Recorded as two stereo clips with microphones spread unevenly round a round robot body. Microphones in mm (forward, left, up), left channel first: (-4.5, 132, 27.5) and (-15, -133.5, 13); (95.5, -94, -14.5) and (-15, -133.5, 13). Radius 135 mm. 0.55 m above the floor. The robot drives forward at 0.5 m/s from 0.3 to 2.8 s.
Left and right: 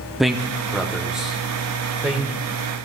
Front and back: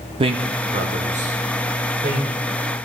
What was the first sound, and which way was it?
A man speaking, 175° right.